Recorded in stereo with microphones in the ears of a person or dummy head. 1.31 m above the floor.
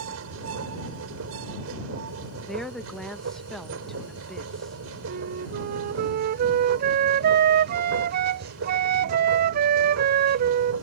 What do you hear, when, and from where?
0.0 s a machine running: 80° right
2.5 s a woman speaking: centre (ahead or behind)
5.1 s a flute: 55° right (ahead or behind)